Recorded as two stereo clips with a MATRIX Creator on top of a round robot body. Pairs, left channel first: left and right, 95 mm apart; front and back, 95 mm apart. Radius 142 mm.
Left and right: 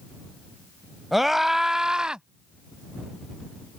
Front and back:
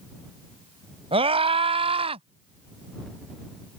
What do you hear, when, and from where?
1.1 s a scream: 175° right; by 2.2 s 170° right